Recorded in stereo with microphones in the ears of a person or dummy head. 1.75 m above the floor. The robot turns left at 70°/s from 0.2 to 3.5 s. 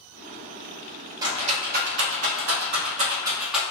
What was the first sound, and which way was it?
A rattle, 15° right (ahead or behind).